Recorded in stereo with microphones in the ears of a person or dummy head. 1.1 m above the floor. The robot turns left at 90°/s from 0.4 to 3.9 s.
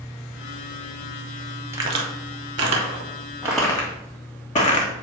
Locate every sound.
1.7 s a crack: 15° right (ahead or behind), 1.7 m; by 4.9 s 30° left (ahead or behind), 1.7 m